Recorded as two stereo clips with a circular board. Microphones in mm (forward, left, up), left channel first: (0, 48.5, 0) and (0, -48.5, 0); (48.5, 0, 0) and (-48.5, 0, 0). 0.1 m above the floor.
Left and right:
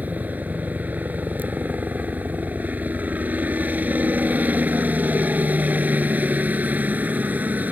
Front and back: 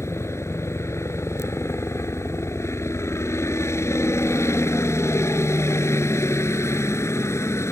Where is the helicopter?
30° right.